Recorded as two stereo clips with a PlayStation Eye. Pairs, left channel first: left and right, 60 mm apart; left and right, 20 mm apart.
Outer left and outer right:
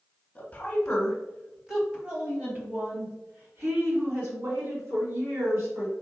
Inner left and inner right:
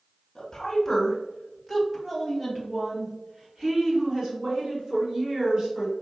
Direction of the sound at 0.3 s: 20° left (ahead or behind).